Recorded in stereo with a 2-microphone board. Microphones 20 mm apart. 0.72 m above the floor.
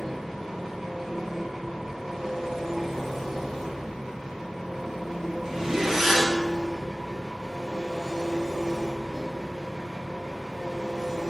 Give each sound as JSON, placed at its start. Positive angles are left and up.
{"t": 0.0, "sound": "an engine running", "side_deg": -20, "distance_m": 1.7}
{"t": 5.4, "sound": "a zipper", "side_deg": -20, "distance_m": 0.6}